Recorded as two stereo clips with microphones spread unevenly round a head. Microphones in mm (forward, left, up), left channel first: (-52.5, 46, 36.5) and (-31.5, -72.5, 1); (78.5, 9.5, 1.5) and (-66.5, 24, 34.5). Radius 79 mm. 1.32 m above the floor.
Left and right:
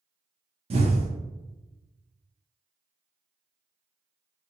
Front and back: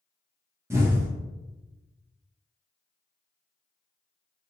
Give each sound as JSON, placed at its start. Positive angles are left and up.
{"t": 0.7, "sound": "an explosion", "azimuth_deg": -110, "distance_m": 0.9}